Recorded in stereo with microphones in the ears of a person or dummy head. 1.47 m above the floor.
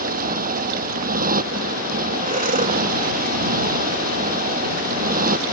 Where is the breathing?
40° right (ahead or behind).